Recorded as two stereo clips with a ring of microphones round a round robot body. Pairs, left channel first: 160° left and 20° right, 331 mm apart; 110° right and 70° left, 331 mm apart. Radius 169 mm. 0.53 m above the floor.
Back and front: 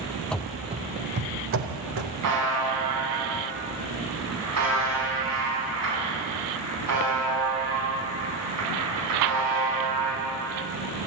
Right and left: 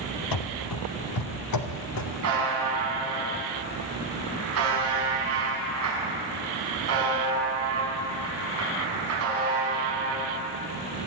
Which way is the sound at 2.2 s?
20° left.